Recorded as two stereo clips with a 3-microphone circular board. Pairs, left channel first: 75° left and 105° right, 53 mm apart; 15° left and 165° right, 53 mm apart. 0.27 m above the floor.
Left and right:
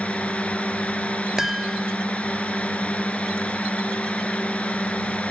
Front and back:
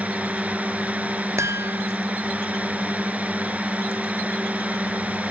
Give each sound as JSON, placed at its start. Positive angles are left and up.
{"t": 0.0, "sound": "a drone", "azimuth_deg": 135}
{"t": 1.4, "sound": "a chime", "azimuth_deg": 175}